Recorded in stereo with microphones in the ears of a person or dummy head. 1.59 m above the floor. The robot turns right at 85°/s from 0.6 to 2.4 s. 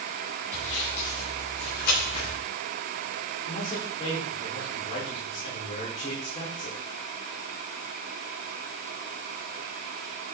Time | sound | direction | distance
0.5 | sawing | 10° left (ahead or behind) | 9 m
3.5 | a man speaking | 30° left (ahead or behind) | 5 m